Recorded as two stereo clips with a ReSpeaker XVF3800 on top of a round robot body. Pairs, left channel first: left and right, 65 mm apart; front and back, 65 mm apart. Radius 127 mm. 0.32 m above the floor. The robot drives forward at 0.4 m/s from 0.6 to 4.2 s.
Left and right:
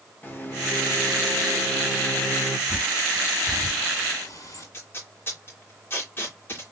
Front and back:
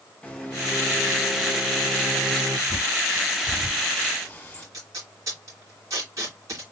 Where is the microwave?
65° left, 1.4 m; by 2.6 s 120° left, 1.4 m.